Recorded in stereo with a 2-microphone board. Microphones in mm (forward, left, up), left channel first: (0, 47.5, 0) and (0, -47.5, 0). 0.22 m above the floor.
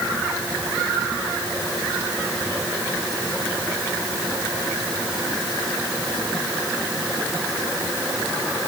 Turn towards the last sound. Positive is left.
No sound to turn to.